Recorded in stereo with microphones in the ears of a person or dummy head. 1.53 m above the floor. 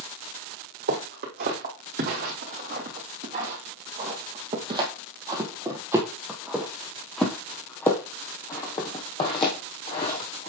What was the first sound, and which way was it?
Footsteps, 55° right (ahead or behind).